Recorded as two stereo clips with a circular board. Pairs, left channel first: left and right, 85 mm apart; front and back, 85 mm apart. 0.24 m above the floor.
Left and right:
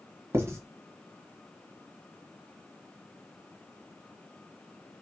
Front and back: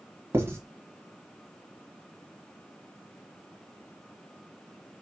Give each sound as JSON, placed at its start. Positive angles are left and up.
{"t": 0.3, "sound": "writing", "azimuth_deg": -135, "distance_m": 1.3}